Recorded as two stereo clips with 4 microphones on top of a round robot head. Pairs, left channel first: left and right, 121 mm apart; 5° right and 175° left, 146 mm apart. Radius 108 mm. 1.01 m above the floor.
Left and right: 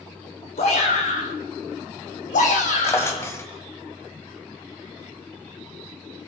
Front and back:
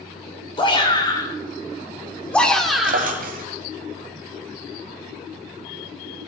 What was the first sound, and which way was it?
A shout, 50° left.